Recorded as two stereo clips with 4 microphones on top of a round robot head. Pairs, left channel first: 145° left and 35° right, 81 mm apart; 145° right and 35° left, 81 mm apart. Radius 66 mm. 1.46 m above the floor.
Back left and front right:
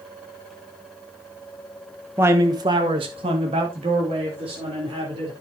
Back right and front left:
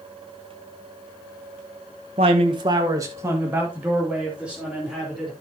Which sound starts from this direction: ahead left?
A man speaking, at 2.2 s.